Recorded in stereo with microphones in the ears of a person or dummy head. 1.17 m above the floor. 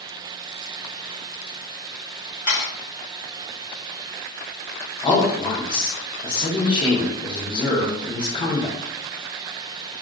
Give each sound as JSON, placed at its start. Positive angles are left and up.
{"t": 2.5, "sound": "a camera shutter", "side_deg": 15, "distance_m": 1.8}
{"t": 5.0, "sound": "a man speaking", "side_deg": 20, "distance_m": 0.8}